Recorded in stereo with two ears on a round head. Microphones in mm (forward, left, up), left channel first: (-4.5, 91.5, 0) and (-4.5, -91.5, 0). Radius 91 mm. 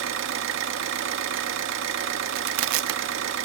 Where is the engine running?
65° right (ahead or behind), 1.8 m.